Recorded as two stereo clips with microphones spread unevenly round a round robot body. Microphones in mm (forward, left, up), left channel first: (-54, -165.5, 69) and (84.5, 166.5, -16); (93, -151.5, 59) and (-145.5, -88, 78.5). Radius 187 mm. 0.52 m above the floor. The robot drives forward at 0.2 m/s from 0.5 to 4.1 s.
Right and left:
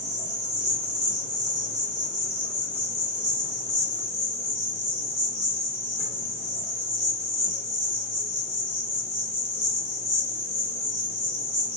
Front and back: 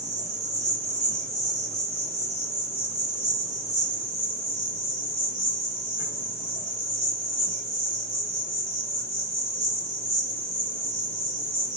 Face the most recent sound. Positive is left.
turn(degrees=135)